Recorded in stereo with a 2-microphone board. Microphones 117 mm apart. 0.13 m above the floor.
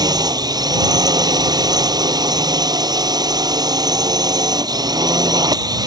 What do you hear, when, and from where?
0.0 s a drone: 35° right (ahead or behind)